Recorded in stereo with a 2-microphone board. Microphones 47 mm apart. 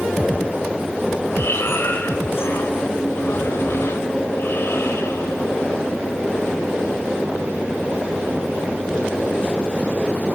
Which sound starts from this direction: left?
Breathing, at 1.4 s.